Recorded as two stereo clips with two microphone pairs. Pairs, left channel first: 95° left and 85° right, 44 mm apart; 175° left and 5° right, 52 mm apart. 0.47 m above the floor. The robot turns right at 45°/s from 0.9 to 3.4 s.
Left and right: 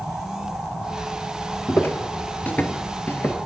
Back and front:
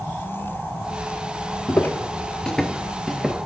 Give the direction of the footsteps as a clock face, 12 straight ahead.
8 o'clock.